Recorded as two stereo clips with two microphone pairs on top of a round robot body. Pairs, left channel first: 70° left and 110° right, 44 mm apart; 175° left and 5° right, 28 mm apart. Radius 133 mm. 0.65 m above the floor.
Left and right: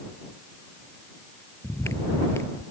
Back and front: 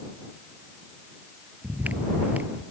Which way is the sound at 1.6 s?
35° left.